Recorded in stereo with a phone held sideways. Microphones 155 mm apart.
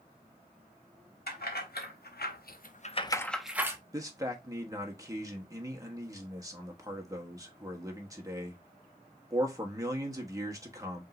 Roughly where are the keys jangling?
Left.